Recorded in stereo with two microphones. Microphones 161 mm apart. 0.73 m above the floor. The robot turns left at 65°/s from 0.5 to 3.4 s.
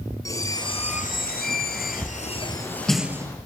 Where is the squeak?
160° left, 1.8 m; by 3.4 s 25° right, 1.8 m.